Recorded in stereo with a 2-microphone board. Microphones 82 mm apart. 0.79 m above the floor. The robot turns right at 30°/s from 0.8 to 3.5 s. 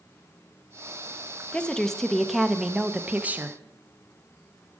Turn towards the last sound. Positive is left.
turn(degrees=-140)